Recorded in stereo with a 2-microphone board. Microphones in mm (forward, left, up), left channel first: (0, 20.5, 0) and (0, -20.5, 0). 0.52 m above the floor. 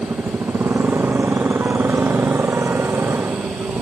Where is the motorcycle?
90° right; by 3.8 s 85° right.